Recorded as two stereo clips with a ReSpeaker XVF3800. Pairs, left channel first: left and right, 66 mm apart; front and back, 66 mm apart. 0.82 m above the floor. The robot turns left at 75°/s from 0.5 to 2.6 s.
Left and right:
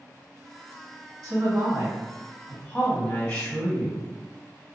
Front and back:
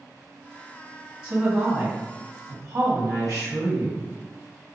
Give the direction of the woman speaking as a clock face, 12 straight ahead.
3 o'clock.